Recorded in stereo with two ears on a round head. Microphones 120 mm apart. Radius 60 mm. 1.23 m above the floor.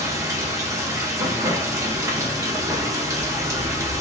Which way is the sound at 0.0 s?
25° right (ahead or behind).